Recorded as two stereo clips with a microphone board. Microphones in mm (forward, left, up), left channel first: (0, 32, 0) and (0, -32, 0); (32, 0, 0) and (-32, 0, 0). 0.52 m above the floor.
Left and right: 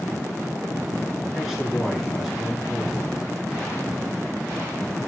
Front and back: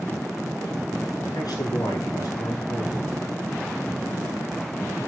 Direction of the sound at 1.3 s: 5° right.